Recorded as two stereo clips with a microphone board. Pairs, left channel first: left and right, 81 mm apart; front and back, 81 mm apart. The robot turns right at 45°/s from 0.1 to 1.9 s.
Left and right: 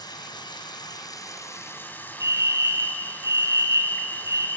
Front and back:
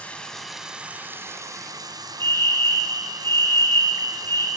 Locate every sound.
0.0 s running water: 75° left, 1.9 m; by 4.6 s 155° left, 1.9 m
2.2 s a fire alarm: 50° right, 3 m